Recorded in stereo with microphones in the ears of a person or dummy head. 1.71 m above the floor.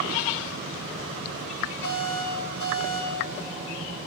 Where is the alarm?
60° left (ahead or behind), 3 m.